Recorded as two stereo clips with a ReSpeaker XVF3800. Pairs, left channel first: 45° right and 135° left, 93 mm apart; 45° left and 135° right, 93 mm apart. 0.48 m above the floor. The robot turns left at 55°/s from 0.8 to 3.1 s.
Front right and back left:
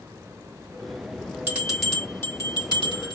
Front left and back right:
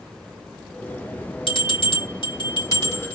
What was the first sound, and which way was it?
A bell, 65° left.